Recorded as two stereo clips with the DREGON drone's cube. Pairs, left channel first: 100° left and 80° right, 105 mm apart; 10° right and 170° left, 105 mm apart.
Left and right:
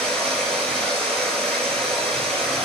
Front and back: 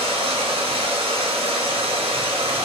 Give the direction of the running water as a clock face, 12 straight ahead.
6 o'clock.